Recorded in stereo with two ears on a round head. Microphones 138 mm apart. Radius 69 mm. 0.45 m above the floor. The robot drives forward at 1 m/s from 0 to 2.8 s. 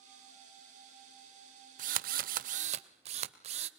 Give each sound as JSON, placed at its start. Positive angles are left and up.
{"t": 1.8, "sound": "a drill", "side_deg": -55, "distance_m": 0.9}